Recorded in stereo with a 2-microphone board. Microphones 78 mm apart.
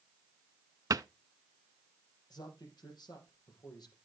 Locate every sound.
0.9 s a cupboard door: 50° right (ahead or behind), 0.5 m
2.3 s a man speaking: 60° left (ahead or behind), 5 m